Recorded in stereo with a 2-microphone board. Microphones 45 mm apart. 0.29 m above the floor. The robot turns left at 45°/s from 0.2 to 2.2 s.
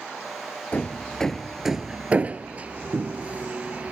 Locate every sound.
0.7 s hammering: 35° left (ahead or behind); by 3.9 s 30° right (ahead or behind)